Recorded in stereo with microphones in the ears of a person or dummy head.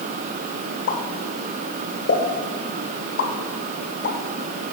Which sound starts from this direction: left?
A pop, at 0.9 s.